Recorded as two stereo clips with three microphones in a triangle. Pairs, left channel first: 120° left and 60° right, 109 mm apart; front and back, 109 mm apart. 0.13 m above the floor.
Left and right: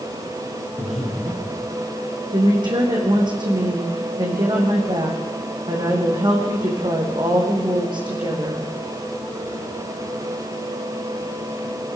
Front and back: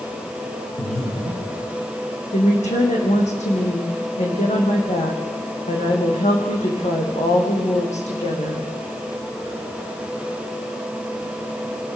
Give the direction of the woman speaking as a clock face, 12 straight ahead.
12 o'clock.